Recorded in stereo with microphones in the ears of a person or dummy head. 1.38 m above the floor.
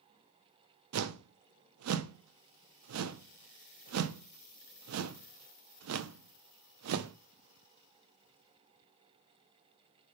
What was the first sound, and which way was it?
A whoosh, 80° right.